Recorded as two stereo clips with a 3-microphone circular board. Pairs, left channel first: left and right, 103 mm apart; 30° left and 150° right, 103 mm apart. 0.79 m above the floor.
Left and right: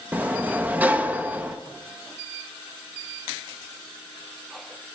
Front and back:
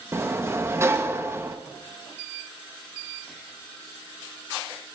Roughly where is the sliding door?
Behind right.